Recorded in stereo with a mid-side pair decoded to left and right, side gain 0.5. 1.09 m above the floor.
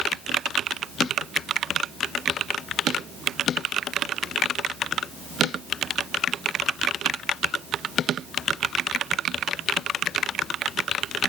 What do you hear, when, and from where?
Only background noise.